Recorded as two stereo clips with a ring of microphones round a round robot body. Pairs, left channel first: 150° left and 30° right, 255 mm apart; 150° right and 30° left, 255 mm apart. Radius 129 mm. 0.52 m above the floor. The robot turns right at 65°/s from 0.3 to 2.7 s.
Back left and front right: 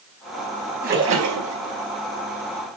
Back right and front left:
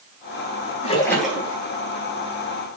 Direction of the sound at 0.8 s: 85° right.